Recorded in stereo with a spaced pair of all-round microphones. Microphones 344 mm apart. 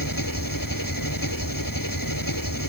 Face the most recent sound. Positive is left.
turn(degrees=70)  # may be behind; listen again after turning